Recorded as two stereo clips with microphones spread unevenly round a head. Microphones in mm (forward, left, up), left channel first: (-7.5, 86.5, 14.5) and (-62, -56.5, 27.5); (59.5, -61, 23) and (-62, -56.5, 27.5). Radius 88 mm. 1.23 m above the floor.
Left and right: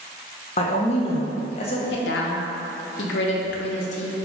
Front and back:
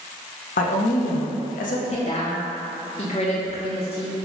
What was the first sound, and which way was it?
A woman speaking, 15° left.